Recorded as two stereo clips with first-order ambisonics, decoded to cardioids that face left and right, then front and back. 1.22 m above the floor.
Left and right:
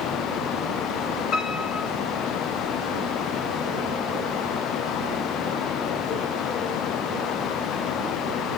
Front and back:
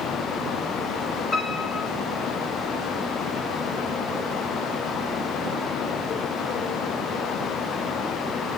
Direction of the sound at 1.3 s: 55° left.